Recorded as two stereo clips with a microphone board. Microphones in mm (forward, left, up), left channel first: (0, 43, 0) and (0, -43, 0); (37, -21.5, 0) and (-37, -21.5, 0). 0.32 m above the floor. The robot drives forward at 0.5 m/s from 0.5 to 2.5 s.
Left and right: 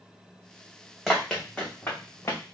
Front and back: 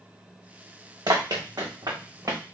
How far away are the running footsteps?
About 1.2 m.